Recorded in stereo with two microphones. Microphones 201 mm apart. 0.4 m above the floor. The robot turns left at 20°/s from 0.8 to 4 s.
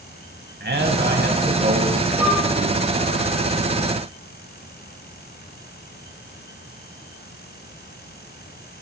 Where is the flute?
10° right (ahead or behind), 6 m; by 2.4 s 5° right (ahead or behind), 6 m.